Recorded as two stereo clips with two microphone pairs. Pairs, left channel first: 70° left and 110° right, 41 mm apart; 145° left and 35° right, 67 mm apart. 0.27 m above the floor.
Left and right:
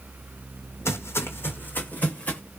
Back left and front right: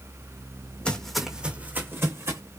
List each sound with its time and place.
0.8 s footsteps: 70° left, 0.9 m; by 2.4 s 5° left, 1.5 m